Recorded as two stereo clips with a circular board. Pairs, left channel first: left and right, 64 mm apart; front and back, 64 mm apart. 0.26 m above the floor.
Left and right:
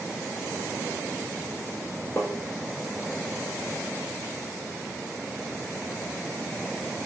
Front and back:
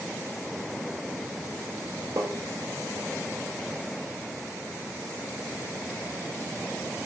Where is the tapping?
155° left, 1.5 m.